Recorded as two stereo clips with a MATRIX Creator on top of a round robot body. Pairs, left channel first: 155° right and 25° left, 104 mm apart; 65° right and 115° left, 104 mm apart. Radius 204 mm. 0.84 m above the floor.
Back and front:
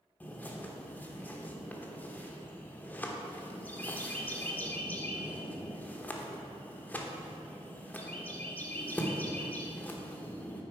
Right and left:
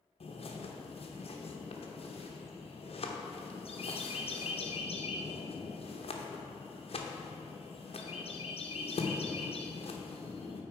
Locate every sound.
0.2 s a bird: 85° right, 1.0 m